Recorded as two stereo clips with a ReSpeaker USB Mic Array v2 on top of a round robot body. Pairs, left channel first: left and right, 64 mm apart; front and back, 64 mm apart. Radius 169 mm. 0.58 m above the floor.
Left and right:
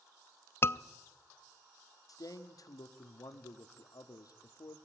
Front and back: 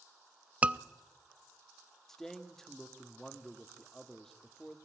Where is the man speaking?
80° left, 1.6 m.